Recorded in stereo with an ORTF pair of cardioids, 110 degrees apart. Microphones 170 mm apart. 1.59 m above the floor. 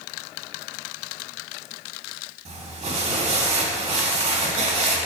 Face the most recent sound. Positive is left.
turn(degrees=-40)